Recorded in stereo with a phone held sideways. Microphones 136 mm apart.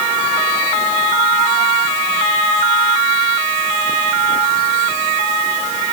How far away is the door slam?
I don't hear a door slam.